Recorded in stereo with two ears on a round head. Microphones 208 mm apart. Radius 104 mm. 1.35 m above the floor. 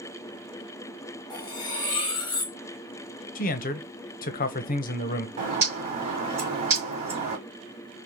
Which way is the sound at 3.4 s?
35° left (ahead or behind).